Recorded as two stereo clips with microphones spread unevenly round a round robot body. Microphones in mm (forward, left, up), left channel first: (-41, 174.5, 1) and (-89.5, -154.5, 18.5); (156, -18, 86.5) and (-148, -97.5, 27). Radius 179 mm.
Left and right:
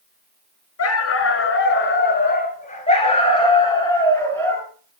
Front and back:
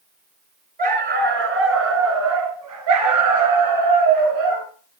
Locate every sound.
0.8 s a dog barking: 130° left, 2.5 m; by 4.7 s 170° left, 4 m